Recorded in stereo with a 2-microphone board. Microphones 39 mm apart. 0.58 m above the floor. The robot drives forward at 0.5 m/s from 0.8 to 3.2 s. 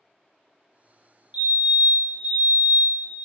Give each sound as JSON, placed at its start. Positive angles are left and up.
{"t": 1.3, "sound": "a fire alarm", "side_deg": -35, "distance_m": 3.0}